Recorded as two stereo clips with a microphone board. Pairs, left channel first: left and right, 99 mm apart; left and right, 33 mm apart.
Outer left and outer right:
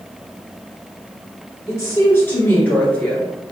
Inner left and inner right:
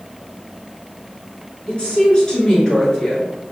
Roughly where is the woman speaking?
Left.